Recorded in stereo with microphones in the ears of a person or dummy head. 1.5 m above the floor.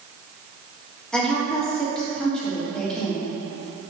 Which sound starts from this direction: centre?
A woman speaking, at 1.1 s.